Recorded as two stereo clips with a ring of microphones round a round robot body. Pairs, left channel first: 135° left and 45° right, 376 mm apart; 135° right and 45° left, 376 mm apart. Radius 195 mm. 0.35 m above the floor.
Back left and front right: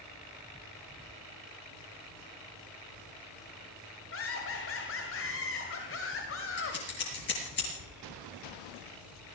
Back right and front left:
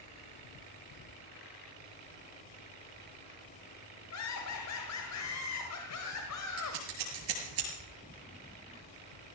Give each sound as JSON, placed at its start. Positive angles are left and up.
{"t": 4.1, "sound": "laughter", "azimuth_deg": -175, "distance_m": 1.8}
{"t": 6.6, "sound": "scissors", "azimuth_deg": 75, "distance_m": 6.0}